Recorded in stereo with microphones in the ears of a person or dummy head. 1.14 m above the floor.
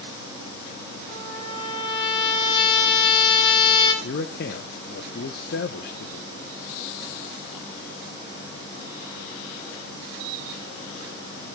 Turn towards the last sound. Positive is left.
turn(degrees=55)  # may be behind; listen again after turning